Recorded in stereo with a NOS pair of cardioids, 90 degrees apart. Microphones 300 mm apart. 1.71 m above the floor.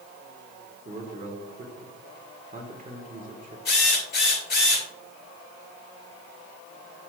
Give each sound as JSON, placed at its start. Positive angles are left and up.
{"t": 0.8, "sound": "a man speaking", "azimuth_deg": -30, "distance_m": 1.8}
{"t": 3.6, "sound": "a drill", "azimuth_deg": 35, "distance_m": 3.5}